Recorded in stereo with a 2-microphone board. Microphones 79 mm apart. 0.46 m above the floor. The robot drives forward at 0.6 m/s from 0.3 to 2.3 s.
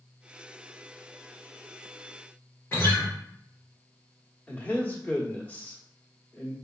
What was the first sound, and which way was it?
A guitar, 30° left (ahead or behind).